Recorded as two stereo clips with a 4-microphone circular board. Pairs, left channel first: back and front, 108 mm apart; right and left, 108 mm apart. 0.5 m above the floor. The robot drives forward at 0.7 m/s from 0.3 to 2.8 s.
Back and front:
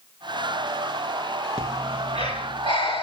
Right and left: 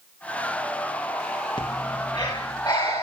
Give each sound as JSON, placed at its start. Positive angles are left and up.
{"t": 1.6, "sound": "breathing", "azimuth_deg": -135, "distance_m": 3.5}